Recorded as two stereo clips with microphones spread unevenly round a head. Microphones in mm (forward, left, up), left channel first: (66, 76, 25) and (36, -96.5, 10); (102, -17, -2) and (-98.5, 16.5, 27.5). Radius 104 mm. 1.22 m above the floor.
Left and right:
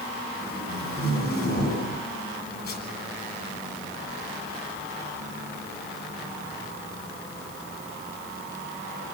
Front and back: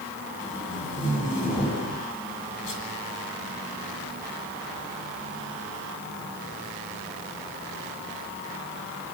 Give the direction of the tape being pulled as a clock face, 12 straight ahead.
10 o'clock.